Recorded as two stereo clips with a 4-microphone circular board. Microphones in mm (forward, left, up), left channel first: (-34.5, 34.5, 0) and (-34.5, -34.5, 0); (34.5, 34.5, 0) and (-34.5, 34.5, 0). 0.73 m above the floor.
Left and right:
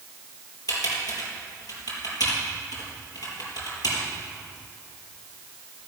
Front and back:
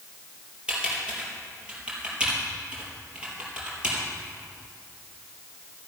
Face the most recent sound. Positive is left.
turn(degrees=105)